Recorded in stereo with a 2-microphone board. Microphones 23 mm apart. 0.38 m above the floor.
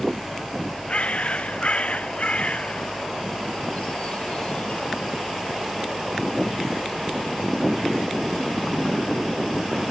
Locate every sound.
0.9 s a bird: 55° left (ahead or behind), 0.7 m